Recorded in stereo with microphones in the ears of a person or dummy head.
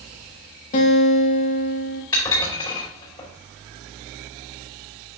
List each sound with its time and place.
0.7 s a guitar: 50° left (ahead or behind), 1.9 m
2.1 s dishes clattering: 20° left (ahead or behind), 4 m